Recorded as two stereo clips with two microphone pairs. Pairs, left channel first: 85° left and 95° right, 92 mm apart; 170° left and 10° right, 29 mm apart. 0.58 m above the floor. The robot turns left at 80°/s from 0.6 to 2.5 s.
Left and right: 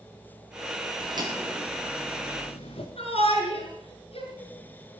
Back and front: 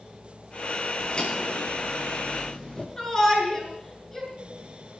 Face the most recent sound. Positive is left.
turn(degrees=95)